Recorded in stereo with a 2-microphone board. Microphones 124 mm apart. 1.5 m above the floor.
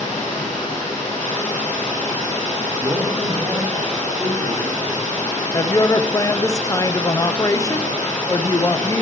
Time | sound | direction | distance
0.0 | running water | 80° left | 6 m
2.8 | a man speaking | centre (ahead or behind) | 5 m
5.5 | a woman speaking | 25° left (ahead or behind) | 0.6 m